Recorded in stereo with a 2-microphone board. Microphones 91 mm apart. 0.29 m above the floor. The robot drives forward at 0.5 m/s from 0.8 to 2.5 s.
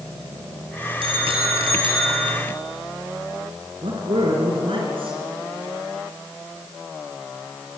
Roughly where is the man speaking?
Right.